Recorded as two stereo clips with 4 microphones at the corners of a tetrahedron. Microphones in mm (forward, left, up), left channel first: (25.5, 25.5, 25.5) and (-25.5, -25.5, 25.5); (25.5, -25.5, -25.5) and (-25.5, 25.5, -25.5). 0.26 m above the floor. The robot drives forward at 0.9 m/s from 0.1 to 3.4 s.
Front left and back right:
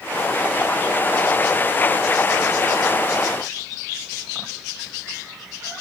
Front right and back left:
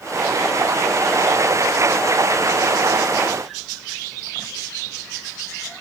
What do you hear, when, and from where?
Only background noise.